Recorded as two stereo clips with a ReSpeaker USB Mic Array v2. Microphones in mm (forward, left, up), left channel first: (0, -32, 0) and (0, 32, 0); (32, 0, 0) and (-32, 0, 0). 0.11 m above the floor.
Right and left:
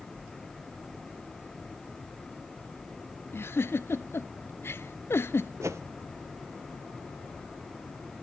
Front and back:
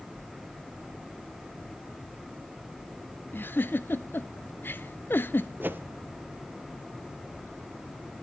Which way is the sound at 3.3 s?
50° right.